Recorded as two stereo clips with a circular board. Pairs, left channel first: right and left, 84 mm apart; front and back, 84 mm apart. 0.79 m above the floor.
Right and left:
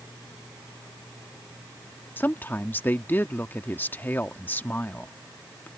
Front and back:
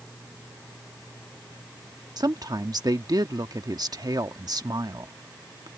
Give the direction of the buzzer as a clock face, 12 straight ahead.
No buzzer in this recording.